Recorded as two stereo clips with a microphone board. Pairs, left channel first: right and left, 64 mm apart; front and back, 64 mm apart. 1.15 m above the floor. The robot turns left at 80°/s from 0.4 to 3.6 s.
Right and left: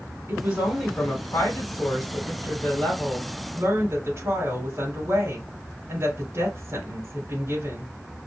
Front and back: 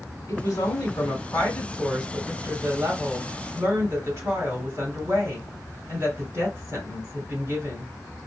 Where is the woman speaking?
30° left, 3.5 m; by 7.9 s 135° left, 3.5 m.